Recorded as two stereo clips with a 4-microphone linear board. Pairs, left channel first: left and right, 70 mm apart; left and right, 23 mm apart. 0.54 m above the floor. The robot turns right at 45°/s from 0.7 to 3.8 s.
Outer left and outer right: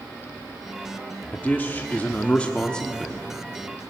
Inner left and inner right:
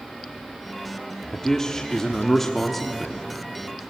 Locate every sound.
1.3 s a man speaking: 30° left (ahead or behind), 1.0 m; by 3.3 s 5° left (ahead or behind), 1.0 m